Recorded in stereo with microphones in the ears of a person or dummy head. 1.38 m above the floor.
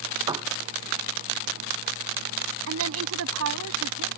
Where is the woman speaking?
85° right.